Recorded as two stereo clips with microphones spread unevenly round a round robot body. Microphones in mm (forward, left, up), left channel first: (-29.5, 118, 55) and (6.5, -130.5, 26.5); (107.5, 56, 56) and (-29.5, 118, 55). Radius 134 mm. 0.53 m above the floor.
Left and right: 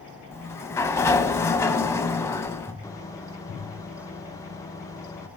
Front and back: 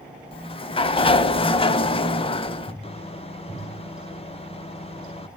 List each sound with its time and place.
0.3 s a sliding door: 25° left, 0.5 m
2.8 s a microwave: 20° left, 0.7 m